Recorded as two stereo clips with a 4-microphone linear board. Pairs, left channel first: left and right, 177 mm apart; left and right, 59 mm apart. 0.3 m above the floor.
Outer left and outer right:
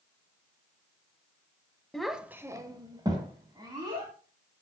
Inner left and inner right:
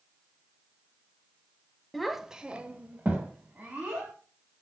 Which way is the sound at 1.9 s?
5° left (ahead or behind).